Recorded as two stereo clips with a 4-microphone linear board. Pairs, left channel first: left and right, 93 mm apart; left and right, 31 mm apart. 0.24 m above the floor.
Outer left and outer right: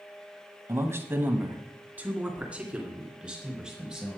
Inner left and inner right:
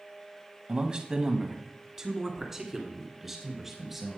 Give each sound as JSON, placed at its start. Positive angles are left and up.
{"t": 0.7, "sound": "a man speaking", "side_deg": -30, "distance_m": 1.4}